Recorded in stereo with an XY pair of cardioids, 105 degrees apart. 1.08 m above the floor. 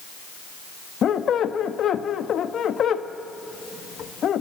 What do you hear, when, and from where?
1.0 s a squeak: 55° left, 0.9 m